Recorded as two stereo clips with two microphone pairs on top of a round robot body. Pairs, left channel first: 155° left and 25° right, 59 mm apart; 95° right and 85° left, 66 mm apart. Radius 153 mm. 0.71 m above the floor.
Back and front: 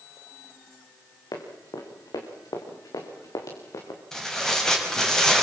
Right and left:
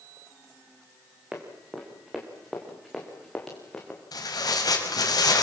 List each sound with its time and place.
1.3 s running footsteps: 165° left, 5 m; by 4.0 s 175° right, 4.5 m
4.1 s tearing paper: 120° right, 5 m